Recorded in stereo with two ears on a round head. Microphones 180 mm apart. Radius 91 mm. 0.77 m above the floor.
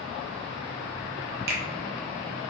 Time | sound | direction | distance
1.5 | a finger snap | 50° right (ahead or behind) | 0.6 m